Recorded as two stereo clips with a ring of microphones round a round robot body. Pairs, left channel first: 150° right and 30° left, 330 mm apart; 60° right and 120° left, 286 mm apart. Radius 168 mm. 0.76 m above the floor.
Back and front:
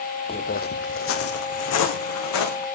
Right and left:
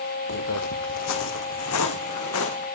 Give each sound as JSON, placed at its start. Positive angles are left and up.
{"t": 0.3, "sound": "footsteps", "azimuth_deg": -80, "distance_m": 1.1}